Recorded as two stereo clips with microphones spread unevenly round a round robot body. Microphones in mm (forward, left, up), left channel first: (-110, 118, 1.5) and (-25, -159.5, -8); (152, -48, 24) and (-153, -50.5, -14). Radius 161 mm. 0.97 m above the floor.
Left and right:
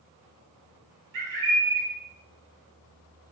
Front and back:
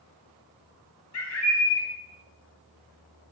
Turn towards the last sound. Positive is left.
turn(degrees=-40)